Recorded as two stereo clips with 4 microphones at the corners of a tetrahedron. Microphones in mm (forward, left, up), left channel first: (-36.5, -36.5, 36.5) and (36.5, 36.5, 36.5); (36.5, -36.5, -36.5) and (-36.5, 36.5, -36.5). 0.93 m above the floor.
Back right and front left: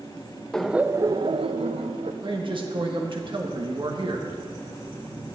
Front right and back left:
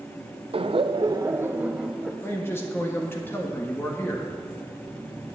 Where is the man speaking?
20° left, 1.3 m.